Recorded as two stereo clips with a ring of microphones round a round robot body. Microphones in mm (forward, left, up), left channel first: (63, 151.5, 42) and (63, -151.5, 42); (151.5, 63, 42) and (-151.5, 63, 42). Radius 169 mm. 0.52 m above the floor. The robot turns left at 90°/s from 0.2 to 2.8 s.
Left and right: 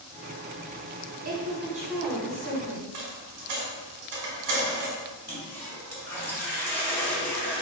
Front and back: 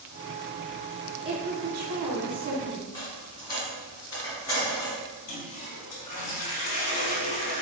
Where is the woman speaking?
110° right, 1.1 m; by 2.8 s 110° left, 1.1 m.